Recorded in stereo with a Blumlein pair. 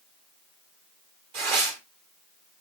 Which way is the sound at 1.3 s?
50° right.